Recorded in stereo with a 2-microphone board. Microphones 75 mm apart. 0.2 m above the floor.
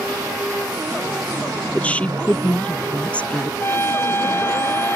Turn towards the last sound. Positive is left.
turn(degrees=35)  # may be behind; listen again after turning